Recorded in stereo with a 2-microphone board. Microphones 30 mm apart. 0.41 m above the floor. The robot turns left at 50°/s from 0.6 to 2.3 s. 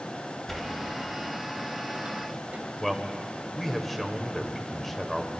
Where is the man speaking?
5° left (ahead or behind), 1.2 m.